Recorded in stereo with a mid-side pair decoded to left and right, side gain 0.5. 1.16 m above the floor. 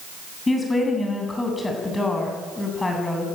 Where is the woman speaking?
20° left, 8 m.